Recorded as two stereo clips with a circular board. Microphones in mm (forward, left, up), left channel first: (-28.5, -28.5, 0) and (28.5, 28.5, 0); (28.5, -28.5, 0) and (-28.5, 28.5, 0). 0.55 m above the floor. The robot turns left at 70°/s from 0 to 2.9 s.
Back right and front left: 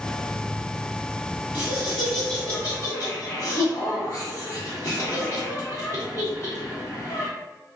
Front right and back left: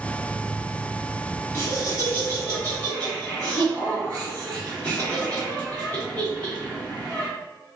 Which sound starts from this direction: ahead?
Laughter, at 1.5 s.